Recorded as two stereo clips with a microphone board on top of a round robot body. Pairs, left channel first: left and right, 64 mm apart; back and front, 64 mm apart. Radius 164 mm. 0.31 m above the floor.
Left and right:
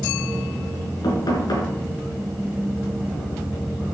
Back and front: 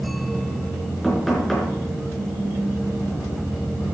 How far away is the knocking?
About 4.5 m.